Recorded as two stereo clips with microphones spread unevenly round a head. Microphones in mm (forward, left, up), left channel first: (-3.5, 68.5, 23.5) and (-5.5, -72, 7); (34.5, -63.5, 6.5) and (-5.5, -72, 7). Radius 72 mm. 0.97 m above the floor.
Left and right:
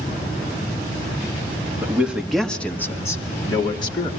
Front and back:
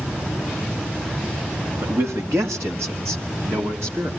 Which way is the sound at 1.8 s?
165° right.